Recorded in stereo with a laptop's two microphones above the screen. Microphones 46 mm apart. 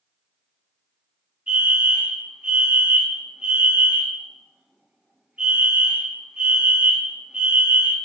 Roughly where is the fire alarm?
Right.